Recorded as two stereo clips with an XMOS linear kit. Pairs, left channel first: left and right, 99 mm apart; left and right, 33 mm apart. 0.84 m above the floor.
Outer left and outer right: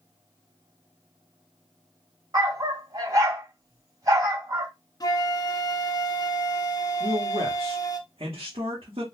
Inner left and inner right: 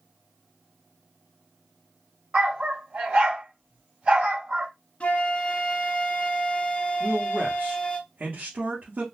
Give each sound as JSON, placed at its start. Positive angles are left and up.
{"t": 2.3, "sound": "a dog barking", "side_deg": -40, "distance_m": 2.0}
{"t": 5.0, "sound": "a flute", "side_deg": 40, "distance_m": 0.6}
{"t": 7.0, "sound": "a man speaking", "side_deg": -70, "distance_m": 1.2}